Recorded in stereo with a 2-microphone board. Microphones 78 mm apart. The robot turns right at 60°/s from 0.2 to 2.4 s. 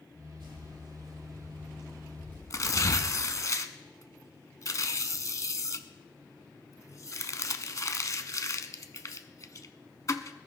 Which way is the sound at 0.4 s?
80° right.